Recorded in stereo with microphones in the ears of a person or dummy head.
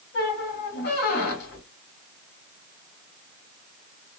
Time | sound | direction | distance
0.1 | a squeak | 50° left (ahead or behind) | 1.5 m